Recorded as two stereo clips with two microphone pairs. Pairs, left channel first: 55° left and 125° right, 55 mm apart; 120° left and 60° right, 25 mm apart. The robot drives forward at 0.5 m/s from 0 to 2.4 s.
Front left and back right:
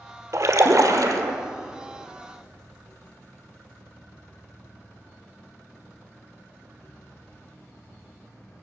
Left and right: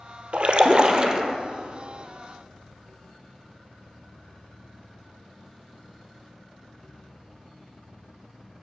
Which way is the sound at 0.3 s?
95° right.